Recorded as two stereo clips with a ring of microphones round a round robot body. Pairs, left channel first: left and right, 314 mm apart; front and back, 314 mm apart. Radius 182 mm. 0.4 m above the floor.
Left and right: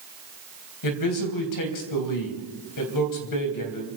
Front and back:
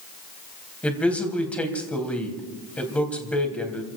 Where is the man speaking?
85° left, 3.5 m.